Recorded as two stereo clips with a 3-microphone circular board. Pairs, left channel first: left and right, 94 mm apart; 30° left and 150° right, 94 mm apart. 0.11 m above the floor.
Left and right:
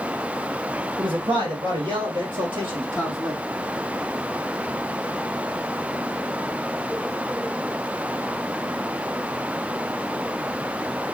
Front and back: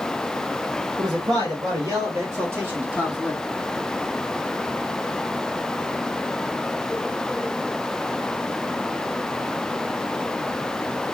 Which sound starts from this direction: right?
A man speaking, at 1.0 s.